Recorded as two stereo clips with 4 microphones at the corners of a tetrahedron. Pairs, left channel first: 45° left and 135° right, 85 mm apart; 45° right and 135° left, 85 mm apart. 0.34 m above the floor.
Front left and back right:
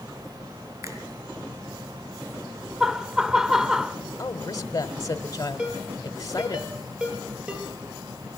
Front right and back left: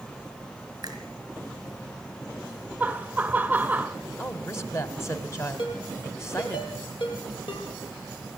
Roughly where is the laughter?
Behind left.